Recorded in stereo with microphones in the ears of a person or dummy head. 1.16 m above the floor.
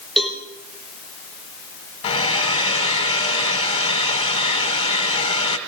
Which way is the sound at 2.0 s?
30° left (ahead or behind).